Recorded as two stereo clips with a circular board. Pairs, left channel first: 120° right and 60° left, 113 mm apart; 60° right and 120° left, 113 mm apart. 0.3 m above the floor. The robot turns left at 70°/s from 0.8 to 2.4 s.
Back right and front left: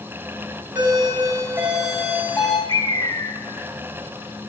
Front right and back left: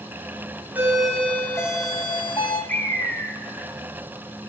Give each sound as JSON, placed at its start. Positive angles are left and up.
{"t": 0.8, "sound": "a doorbell", "azimuth_deg": 55, "distance_m": 1.9}
{"t": 2.7, "sound": "a bird", "azimuth_deg": -125, "distance_m": 0.7}